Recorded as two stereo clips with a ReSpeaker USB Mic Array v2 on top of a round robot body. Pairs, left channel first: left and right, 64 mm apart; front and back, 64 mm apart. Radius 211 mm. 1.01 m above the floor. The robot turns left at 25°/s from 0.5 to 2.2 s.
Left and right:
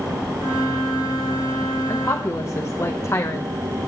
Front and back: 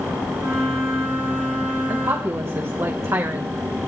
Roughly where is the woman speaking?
Behind left.